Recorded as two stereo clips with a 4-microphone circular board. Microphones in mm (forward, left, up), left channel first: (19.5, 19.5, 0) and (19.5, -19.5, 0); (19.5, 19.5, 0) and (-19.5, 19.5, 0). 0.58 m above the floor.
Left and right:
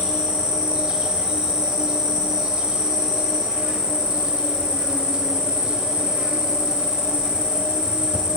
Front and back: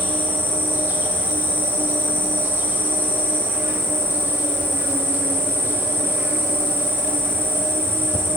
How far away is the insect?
About 1.3 m.